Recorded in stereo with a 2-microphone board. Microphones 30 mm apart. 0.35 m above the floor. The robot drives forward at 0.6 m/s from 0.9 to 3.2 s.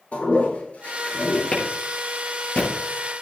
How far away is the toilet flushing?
About 3.5 m.